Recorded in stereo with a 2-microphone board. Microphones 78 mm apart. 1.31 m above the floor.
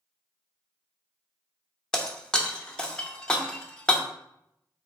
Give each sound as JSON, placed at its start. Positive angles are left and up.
{"t": 1.9, "sound": "breaking glass", "side_deg": 10, "distance_m": 0.6}